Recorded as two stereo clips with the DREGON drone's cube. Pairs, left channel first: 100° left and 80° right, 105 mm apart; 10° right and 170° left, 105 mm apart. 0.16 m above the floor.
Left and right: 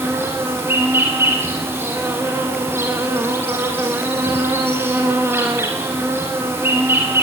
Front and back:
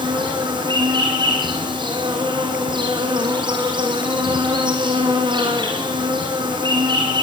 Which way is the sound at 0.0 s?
145° right.